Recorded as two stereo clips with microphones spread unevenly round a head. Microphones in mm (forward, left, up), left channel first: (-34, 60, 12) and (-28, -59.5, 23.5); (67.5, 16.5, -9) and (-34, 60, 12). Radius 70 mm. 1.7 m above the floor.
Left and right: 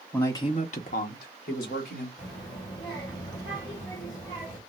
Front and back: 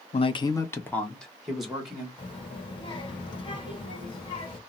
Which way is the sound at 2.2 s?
25° left.